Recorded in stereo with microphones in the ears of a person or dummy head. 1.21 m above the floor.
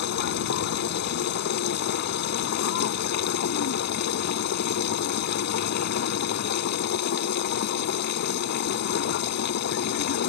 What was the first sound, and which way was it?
A machine running, 60° left (ahead or behind).